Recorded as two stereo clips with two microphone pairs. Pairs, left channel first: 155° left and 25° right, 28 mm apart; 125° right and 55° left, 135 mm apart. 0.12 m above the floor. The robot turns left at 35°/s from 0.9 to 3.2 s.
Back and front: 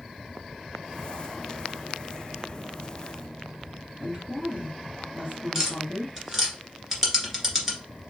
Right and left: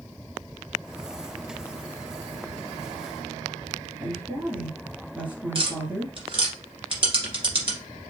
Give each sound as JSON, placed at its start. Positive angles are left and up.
{"t": 4.0, "sound": "a woman speaking", "azimuth_deg": -20, "distance_m": 2.0}
{"t": 5.5, "sound": "tapping", "azimuth_deg": 45, "distance_m": 1.8}